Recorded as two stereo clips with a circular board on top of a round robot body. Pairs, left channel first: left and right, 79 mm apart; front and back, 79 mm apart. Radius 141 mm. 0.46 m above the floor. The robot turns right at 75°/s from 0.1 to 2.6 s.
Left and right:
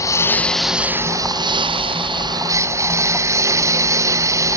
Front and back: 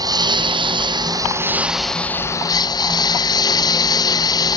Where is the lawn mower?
145° left; by 4.6 s 35° right.